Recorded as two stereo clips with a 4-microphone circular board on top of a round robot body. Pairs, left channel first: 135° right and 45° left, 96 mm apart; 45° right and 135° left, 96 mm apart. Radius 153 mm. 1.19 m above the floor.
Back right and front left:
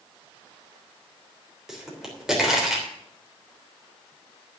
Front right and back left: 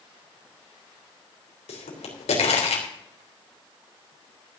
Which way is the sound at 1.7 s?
40° right.